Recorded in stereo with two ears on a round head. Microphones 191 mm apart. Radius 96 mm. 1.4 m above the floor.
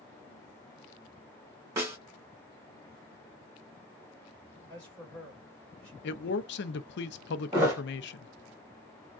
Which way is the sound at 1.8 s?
15° right (ahead or behind).